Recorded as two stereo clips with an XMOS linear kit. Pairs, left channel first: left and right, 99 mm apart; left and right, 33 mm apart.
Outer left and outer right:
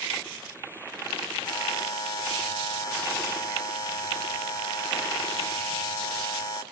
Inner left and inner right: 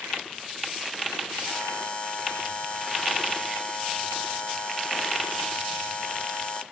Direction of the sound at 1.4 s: 40° left (ahead or behind).